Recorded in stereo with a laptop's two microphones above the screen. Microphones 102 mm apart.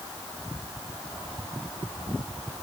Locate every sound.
Only background noise.